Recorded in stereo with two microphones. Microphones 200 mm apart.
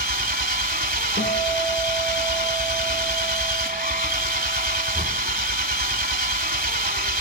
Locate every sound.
0.0 s an engine running: 50° right (ahead or behind), 1.0 m
1.2 s a guitar: 70° left (ahead or behind), 4 m